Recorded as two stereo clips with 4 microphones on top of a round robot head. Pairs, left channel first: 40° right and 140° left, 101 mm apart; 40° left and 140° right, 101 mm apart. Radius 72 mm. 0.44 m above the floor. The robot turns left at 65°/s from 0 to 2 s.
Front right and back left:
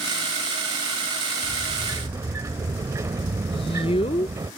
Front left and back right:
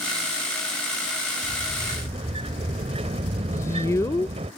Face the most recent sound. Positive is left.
turn(degrees=-20)